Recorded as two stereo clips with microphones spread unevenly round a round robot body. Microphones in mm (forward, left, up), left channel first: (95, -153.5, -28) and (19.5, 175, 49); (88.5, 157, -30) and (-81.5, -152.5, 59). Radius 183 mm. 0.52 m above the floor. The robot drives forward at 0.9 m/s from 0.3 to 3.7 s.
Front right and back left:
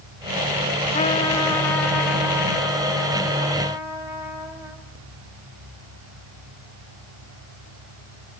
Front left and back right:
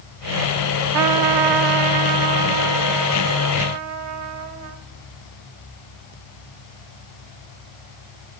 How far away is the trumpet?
About 0.7 m.